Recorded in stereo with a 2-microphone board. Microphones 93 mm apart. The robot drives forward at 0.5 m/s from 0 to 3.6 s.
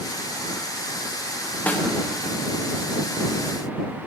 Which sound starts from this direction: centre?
A snare drum, at 1.7 s.